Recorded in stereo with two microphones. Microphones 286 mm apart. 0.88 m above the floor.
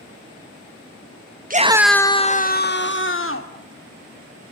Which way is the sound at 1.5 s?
30° right (ahead or behind).